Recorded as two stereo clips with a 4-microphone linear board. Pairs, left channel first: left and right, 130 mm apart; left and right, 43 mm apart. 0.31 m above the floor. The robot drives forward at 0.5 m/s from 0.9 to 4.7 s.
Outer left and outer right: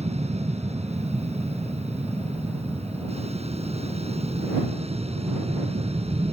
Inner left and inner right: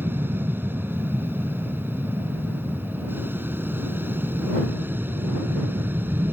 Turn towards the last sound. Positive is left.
turn(degrees=-55)  # may be behind; listen again after turning